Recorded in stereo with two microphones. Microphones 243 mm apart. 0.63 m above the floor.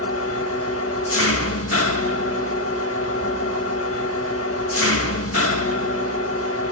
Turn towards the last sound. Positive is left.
turn(degrees=65)  # may be behind; listen again after turning